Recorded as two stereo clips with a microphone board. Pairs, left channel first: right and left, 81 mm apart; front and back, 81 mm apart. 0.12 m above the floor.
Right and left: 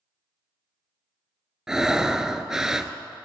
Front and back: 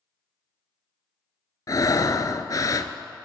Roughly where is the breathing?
Ahead.